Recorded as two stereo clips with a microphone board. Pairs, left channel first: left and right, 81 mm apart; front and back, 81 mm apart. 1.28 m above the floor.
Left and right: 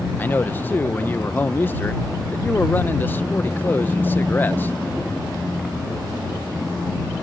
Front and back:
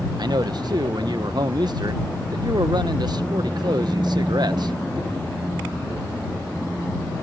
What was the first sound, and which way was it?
A man speaking, 155° left.